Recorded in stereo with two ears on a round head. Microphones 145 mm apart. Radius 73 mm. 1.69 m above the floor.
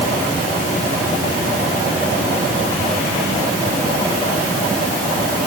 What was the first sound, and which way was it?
Only background noise.